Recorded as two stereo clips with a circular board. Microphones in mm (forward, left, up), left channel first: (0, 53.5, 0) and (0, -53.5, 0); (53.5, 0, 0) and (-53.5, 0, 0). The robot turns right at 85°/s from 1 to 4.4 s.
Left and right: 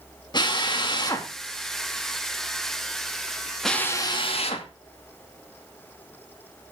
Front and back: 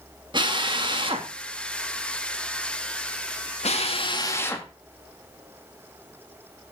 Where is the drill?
140° left, 2 m; by 4.7 s 65° left, 2 m.